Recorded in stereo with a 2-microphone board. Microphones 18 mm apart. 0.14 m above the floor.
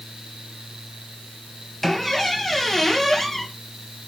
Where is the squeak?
15° left (ahead or behind), 2 m.